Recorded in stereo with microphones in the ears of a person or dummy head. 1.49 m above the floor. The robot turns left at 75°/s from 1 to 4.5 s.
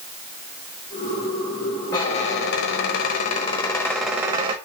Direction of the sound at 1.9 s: 160° left.